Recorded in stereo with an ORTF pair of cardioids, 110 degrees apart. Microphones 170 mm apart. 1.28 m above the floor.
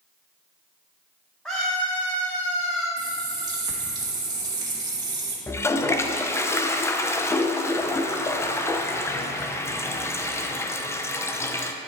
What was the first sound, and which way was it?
A scream, straight ahead.